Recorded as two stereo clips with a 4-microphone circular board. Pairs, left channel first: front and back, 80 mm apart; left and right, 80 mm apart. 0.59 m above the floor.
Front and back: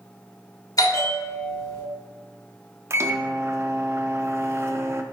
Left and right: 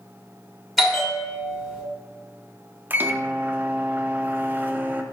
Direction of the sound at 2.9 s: 145° right.